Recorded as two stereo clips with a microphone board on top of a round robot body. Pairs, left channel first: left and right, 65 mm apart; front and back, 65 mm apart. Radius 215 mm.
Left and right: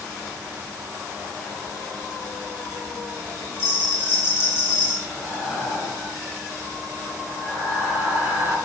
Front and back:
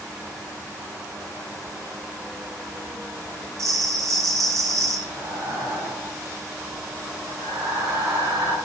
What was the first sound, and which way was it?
A bell, 145° left.